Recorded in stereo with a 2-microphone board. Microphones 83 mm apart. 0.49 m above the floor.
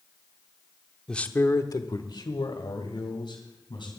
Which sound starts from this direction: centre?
A man speaking, at 1.1 s.